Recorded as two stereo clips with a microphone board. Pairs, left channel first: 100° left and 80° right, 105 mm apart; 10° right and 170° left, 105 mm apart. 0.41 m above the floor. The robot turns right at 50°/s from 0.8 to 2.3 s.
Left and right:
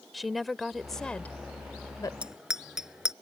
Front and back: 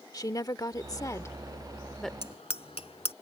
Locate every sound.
0.1 s a woman speaking: 10° left; by 2.1 s 75° left
2.2 s a bicycle bell: straight ahead; by 3.1 s 5° left